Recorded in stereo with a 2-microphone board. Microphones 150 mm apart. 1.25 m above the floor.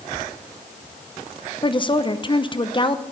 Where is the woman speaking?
35° left (ahead or behind), 0.7 m.